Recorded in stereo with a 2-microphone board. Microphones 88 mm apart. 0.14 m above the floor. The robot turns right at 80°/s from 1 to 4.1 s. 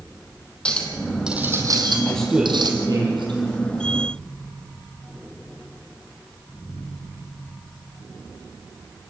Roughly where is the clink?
Behind.